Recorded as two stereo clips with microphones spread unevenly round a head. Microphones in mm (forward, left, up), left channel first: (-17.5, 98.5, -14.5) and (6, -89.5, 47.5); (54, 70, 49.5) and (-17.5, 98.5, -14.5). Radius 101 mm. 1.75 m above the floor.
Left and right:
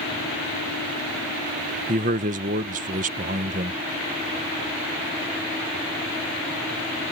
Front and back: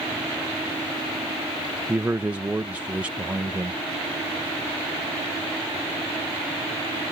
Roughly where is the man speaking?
Right.